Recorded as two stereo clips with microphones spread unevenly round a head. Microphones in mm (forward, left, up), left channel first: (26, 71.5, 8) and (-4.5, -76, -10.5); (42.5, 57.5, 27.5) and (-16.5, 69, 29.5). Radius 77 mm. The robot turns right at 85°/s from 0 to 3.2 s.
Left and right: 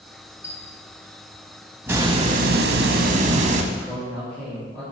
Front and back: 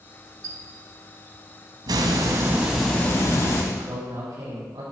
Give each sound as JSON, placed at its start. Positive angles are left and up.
{"t": 0.4, "sound": "a squeak", "azimuth_deg": 150, "distance_m": 1.6}
{"t": 1.9, "sound": "a hiss", "azimuth_deg": -175, "distance_m": 1.2}
{"t": 3.7, "sound": "a man speaking", "azimuth_deg": 160, "distance_m": 5.0}